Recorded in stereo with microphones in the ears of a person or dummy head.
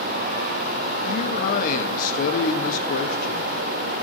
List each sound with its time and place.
1.1 s a man speaking: 45° left (ahead or behind), 1.1 m